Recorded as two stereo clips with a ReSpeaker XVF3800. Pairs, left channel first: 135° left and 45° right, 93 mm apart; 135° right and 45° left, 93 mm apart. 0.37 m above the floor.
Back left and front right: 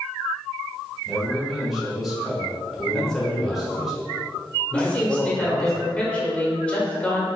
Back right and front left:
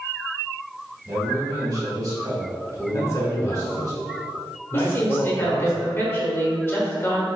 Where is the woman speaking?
160° right, 1.0 m.